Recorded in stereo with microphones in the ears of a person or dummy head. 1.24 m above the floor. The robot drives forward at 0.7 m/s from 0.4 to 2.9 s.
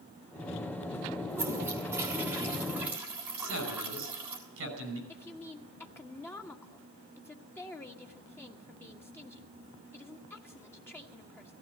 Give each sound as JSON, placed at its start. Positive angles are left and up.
{"t": 1.3, "sound": "a toilet flushing", "side_deg": -20, "distance_m": 2.5}
{"t": 3.4, "sound": "a man speaking", "side_deg": -70, "distance_m": 6.0}
{"t": 5.1, "sound": "a woman speaking", "side_deg": 10, "distance_m": 1.4}